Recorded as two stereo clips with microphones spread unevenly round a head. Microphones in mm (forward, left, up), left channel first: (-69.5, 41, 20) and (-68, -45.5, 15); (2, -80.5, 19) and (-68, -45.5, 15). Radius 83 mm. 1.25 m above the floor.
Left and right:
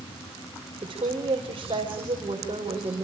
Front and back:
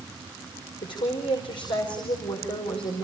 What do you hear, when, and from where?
0.8 s a woman speaking: 35° right, 5.5 m